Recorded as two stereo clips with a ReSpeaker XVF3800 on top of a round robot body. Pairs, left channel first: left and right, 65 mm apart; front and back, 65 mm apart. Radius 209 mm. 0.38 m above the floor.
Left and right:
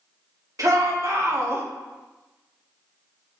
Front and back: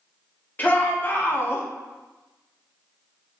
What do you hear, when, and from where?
0.6 s a shout: 60° right, 2 m; by 1.6 s 45° right, 1.6 m